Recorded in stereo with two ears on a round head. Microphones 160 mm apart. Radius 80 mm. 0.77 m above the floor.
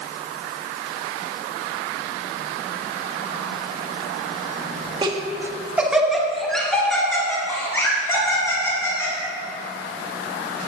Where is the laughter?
25° right (ahead or behind), 1.7 m; by 9.1 s 15° left (ahead or behind), 6 m.